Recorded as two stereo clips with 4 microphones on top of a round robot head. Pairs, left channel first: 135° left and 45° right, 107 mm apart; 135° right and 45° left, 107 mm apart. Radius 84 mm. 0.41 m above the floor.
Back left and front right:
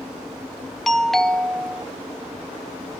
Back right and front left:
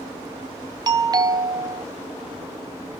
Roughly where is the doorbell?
Ahead left.